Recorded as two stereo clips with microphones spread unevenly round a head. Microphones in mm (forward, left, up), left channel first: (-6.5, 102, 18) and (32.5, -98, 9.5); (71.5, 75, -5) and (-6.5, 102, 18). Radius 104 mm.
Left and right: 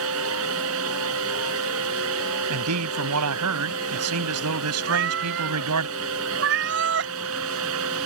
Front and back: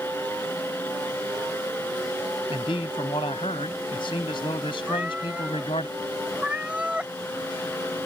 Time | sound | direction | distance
0.0 | a fan | 105° right | ?
2.5 | a man speaking | 80° right | ?
4.9 | a cat meowing | 115° right | ?